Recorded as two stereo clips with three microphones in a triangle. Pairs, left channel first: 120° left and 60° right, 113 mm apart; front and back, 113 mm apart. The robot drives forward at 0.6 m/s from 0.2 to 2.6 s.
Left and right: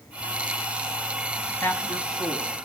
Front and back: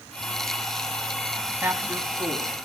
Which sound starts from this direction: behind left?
A man speaking, at 1.6 s.